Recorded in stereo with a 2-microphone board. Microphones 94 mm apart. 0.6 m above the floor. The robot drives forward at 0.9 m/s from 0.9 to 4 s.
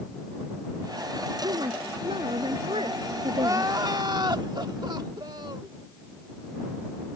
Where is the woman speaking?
75° right (ahead or behind); by 3.7 s 85° right.